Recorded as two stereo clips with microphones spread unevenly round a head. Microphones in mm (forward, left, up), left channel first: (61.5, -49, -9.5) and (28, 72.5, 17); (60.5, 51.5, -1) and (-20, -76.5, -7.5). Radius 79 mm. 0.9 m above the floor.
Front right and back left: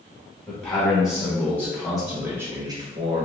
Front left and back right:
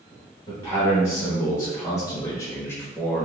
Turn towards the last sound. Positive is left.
turn(degrees=140)